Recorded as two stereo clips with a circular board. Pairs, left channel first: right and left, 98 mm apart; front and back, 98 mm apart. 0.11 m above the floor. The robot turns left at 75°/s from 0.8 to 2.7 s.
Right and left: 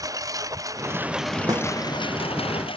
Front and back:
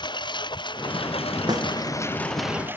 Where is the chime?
No chime in this recording.